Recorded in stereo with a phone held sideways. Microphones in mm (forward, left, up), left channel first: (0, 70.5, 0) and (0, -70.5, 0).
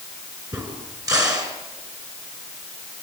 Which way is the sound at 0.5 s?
25° right (ahead or behind).